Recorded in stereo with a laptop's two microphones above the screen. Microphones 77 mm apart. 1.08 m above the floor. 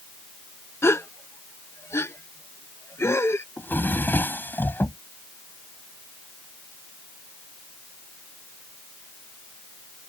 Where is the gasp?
35° left (ahead or behind).